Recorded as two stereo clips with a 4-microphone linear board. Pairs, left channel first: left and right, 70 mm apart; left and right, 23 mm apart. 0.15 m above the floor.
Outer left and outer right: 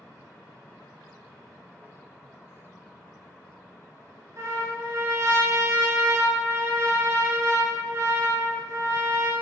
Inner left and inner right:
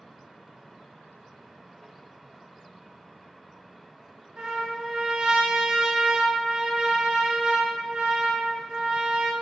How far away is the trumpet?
About 0.9 m.